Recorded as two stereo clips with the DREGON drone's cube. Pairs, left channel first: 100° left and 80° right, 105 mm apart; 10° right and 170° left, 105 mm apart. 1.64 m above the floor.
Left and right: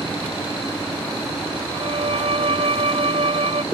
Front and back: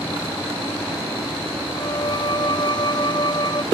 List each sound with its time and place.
1.7 s a violin: 55° right